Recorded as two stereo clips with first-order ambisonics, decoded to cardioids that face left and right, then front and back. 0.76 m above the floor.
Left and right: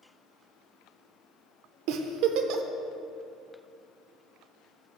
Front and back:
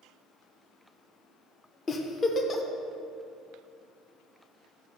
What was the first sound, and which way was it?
A giggle, 70° right.